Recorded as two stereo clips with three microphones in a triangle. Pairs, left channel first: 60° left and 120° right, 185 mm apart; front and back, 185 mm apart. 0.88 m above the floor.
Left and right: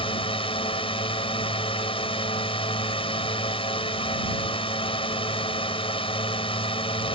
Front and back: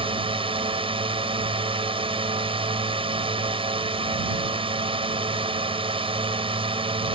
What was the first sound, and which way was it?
A drone, 120° left.